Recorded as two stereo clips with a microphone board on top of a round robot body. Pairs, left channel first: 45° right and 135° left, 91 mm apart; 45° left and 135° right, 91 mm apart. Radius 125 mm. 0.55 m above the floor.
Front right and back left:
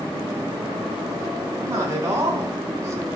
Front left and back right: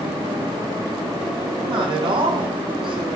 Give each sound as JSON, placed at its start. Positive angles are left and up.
{"t": 1.6, "sound": "a man speaking", "azimuth_deg": -165, "distance_m": 4.5}